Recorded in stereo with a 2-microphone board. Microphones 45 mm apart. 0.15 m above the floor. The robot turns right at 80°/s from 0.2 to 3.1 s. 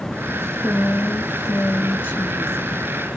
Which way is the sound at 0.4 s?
5° left.